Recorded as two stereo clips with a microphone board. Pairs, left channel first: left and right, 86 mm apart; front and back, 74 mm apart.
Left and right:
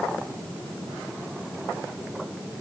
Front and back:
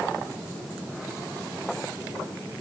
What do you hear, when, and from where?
Only background noise.